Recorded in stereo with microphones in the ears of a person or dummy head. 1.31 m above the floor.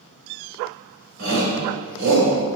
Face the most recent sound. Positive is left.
turn(degrees=-60)  # may be behind; listen again after turning